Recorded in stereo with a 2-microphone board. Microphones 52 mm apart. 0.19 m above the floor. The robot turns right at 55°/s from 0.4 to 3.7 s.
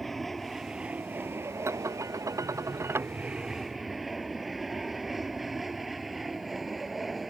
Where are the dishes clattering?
125° right; by 3.1 s 45° right.